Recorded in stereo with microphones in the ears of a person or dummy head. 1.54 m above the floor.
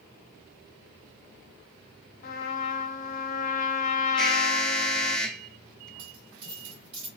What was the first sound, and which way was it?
A trumpet, 45° left (ahead or behind).